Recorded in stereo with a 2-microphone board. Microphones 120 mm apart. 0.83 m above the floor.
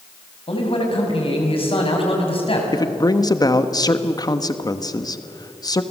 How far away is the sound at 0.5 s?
About 5.5 m.